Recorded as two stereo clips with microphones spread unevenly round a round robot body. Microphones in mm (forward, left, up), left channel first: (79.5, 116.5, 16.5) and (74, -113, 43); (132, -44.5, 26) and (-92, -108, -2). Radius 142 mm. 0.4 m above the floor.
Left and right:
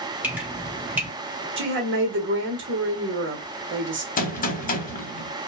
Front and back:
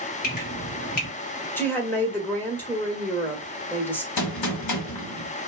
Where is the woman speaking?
70° right, 1.1 m.